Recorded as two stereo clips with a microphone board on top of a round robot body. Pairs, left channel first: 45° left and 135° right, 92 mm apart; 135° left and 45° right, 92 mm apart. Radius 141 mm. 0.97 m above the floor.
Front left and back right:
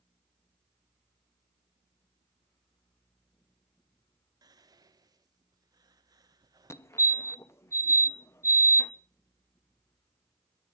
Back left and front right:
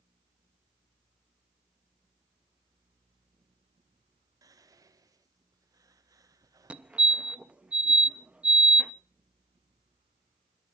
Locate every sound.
4.4 s whispering: 95° right, 1.2 m
6.7 s a fire alarm: 20° left, 1.2 m